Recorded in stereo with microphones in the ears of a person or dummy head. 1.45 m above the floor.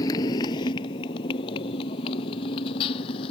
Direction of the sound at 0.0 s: 20° left (ahead or behind).